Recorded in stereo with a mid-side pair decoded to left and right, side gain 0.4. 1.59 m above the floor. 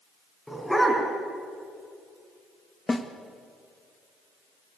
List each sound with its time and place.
0.5 s a dog barking: 5° left, 5.5 m
2.9 s a snare drum: 20° left, 2 m